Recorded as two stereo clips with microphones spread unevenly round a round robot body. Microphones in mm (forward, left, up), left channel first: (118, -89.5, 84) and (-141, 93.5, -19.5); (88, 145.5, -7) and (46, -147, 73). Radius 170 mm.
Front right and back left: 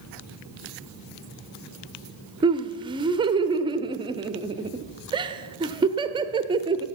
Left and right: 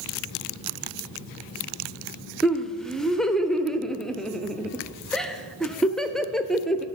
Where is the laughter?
140° left, 0.8 m.